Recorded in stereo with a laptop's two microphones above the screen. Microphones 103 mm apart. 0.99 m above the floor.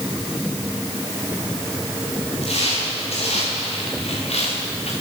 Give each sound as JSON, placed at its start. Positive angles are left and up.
{"t": 2.4, "sound": "footsteps", "side_deg": 80, "distance_m": 9.0}